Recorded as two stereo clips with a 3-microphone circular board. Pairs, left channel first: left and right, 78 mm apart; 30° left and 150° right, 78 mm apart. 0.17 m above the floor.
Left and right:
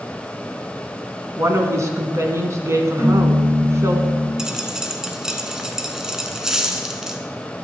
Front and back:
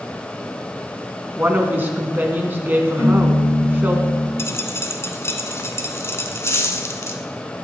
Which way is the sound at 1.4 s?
100° right.